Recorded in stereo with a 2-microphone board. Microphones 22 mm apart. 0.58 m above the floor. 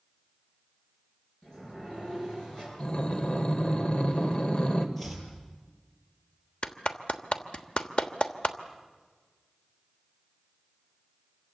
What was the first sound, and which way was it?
A sliding door, 30° left (ahead or behind).